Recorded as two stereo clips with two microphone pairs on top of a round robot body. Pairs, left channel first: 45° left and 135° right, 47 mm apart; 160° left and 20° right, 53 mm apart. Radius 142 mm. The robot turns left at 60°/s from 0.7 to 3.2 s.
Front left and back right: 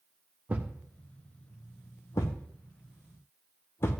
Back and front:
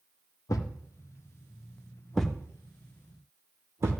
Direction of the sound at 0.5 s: 165° left.